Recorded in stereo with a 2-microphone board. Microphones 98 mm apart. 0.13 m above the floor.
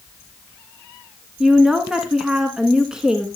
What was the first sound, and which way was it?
A woman speaking, 5° right (ahead or behind).